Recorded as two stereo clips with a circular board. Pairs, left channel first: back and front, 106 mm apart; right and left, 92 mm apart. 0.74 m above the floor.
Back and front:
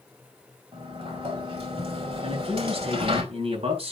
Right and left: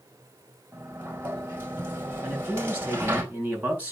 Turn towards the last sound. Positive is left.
turn(degrees=15)